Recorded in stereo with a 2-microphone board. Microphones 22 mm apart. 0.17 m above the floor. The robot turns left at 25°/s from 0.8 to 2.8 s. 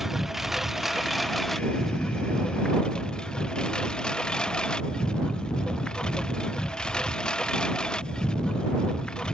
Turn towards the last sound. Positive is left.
turn(degrees=145)